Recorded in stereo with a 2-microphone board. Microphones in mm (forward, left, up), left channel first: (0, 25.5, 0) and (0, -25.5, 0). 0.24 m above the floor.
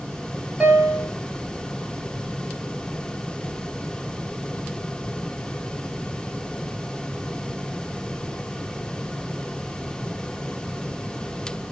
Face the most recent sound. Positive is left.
turn(degrees=-20)  # may be behind; listen again after turning